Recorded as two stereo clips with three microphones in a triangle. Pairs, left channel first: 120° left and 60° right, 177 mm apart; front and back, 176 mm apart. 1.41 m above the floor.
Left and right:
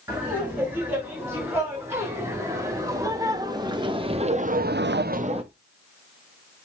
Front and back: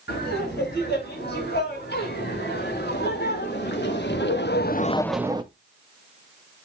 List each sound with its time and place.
0.1 s laughter: 20° left, 6.5 m; by 5.4 s 115° right, 0.8 m